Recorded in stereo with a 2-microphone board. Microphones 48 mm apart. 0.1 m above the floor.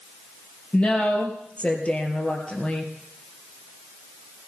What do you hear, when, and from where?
0.7 s a woman speaking: 30° left (ahead or behind), 3 m